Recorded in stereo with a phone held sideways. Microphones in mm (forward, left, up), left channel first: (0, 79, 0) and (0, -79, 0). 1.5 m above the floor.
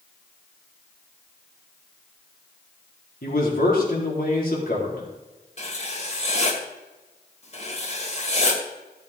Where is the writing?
45° left (ahead or behind), 2.5 m.